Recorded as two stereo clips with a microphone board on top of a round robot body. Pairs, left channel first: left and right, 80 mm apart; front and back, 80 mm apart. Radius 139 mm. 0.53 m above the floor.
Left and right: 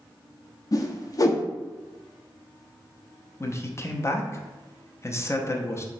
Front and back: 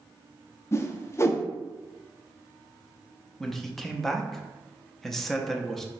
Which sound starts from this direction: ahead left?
A whoosh, at 0.7 s.